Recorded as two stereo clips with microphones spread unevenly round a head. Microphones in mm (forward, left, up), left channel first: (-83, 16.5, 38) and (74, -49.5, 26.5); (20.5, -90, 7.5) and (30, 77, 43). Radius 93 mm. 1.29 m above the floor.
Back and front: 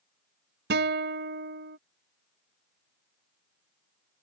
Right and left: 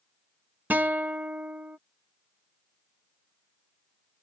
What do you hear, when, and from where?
0.7 s a guitar: 5° left